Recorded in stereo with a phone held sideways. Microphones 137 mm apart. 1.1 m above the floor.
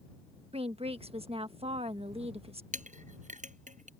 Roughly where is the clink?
Right.